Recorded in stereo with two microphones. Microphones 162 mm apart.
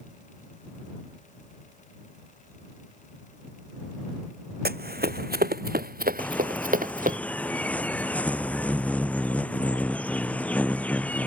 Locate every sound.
4.7 s running footsteps: 80° right; by 7.2 s 60° right (ahead or behind)
6.2 s a bird: 10° left (ahead or behind)